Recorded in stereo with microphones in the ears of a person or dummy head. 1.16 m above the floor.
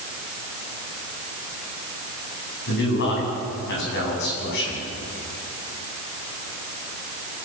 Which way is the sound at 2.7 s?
60° left (ahead or behind).